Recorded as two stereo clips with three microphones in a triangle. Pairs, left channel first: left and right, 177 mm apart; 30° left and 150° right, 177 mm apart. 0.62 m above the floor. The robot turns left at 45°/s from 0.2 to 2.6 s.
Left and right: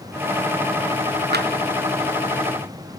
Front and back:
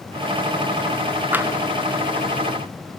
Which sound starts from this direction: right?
Tapping, at 1.3 s.